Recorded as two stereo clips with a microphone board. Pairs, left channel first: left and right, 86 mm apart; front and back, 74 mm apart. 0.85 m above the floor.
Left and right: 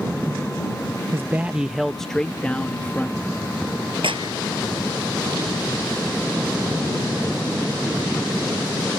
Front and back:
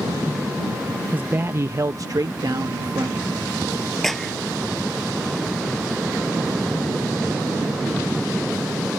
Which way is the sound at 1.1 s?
125° right.